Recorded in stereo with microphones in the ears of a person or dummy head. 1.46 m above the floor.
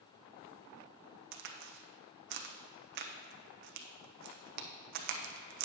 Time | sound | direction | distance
1.3 | a crack | 60° right (ahead or behind) | 0.6 m